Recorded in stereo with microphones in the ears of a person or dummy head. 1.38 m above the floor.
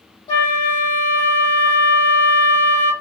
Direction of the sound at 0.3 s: 30° left (ahead or behind).